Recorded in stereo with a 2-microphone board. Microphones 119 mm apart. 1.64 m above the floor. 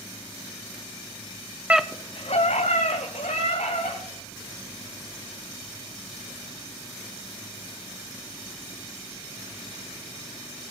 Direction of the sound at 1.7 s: 10° right (ahead or behind).